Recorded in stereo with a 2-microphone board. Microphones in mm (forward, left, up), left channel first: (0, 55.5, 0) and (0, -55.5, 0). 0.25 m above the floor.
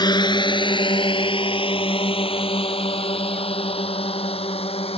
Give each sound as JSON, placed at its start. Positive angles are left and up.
{"t": 0.0, "sound": "a drone", "side_deg": 40}